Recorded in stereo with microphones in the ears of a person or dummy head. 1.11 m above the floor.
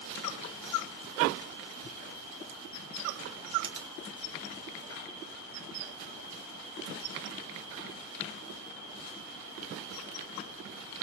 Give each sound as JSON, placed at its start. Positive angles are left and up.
{"t": 3.6, "sound": "a finger snap", "side_deg": -25, "distance_m": 1.2}